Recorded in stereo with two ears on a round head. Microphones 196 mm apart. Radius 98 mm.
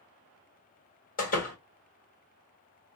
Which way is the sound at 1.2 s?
35° left (ahead or behind).